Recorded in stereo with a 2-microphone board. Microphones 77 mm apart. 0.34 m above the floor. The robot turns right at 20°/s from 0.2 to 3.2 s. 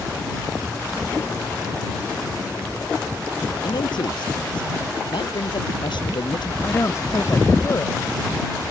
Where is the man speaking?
75° left (ahead or behind).